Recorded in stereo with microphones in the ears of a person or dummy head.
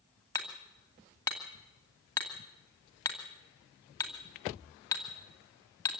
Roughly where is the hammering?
Centre.